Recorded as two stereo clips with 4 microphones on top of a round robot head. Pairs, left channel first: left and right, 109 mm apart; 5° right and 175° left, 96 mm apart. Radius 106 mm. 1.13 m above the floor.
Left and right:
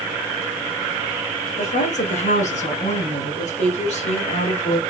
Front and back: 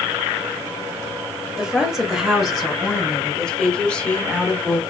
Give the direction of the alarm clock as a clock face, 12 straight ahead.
I don't hear an alarm clock.